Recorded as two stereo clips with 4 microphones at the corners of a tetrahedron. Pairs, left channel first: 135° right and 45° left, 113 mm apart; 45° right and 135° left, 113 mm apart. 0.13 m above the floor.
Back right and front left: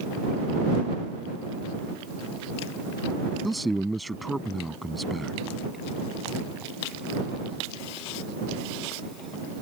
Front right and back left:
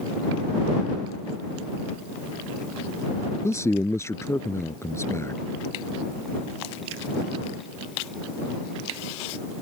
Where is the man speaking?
45° right.